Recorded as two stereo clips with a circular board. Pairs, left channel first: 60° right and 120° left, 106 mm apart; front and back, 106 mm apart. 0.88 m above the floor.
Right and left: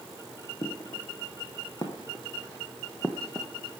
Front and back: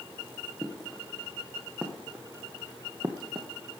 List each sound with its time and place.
0.6 s footsteps: 95° right, 4 m; by 3.5 s 145° right, 2 m